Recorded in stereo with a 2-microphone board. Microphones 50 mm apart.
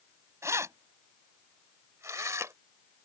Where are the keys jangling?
70° right (ahead or behind).